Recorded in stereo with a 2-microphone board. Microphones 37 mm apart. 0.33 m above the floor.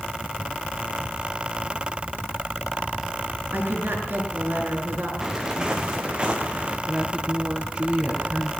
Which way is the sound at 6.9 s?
25° right (ahead or behind).